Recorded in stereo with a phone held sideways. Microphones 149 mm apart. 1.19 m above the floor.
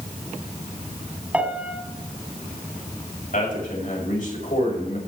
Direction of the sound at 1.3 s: 10° right (ahead or behind).